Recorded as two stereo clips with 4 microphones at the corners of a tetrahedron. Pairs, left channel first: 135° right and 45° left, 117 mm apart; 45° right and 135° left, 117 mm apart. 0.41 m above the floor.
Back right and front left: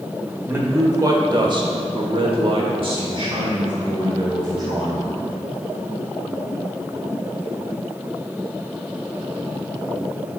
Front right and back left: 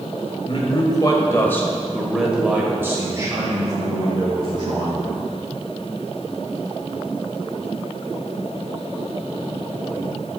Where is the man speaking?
20° right, 1.2 m; by 5.3 s 100° left, 2.5 m.